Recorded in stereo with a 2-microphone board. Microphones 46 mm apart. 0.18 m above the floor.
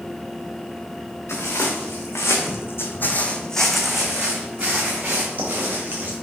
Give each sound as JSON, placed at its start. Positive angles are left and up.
{"t": 1.3, "sound": "footsteps", "side_deg": 75, "distance_m": 1.3}